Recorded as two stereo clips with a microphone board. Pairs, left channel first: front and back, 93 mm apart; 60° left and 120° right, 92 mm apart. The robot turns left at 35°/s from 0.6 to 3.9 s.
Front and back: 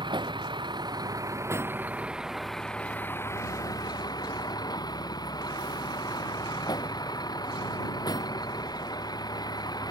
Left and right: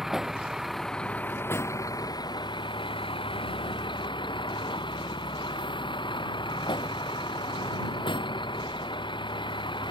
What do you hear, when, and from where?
0.0 s a vehicle: 155° left; by 9.9 s 40° left